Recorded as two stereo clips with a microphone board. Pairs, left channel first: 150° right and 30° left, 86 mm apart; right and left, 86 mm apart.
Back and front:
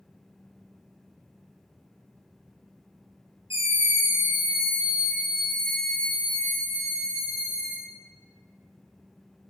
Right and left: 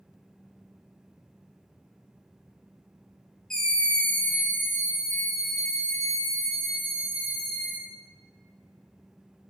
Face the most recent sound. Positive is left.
turn(degrees=-110)